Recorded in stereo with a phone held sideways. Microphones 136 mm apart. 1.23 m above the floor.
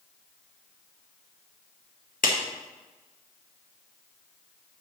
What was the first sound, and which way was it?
A clap, 85° left.